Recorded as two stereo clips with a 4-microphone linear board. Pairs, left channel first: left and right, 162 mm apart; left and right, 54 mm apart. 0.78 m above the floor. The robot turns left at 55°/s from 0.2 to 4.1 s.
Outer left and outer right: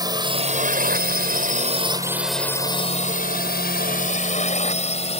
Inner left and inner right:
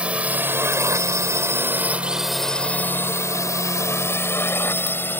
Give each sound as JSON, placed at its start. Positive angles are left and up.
{"t": 0.0, "sound": "a drone", "side_deg": -25}